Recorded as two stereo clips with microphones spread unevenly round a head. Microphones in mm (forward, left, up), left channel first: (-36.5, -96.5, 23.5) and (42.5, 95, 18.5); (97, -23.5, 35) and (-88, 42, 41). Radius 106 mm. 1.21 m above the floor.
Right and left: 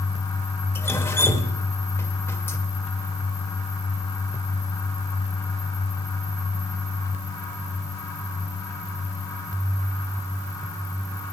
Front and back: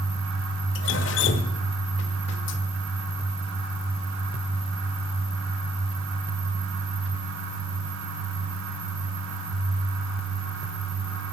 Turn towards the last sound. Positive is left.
turn(degrees=-40)